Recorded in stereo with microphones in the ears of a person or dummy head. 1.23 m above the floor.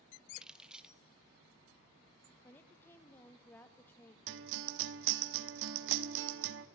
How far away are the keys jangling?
About 0.9 m.